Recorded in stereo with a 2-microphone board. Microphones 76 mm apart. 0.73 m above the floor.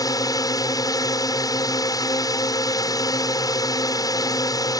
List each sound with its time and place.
0.0 s a drone: 55° left (ahead or behind)